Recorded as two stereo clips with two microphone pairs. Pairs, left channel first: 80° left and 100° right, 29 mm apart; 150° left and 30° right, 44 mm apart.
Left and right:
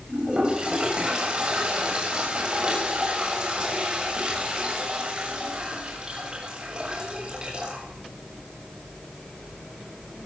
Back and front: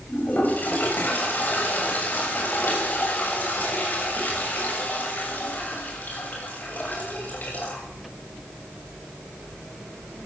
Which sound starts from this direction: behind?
A toilet flushing, at 0.1 s.